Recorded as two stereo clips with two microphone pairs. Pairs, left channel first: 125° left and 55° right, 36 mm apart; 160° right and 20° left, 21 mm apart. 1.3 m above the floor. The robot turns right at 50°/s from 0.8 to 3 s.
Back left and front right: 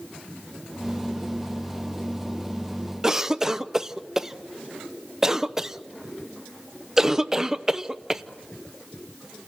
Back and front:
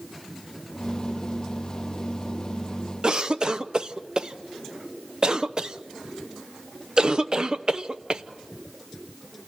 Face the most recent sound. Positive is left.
turn(degrees=10)